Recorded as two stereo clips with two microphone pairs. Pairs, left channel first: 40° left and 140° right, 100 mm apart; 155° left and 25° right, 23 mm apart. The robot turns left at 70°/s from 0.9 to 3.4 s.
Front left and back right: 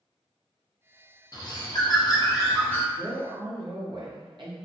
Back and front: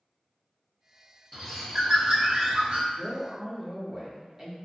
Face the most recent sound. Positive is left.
turn(degrees=-100)